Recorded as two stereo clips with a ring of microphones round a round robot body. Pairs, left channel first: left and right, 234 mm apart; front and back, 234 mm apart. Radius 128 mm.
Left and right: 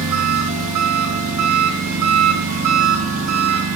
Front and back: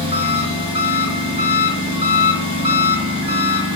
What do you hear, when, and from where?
0.0 s an engine running: 115° right, 6 m